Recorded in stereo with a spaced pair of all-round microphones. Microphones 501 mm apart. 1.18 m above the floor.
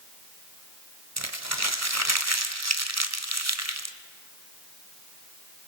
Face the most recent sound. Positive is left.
turn(degrees=-30)  # may be behind; listen again after turning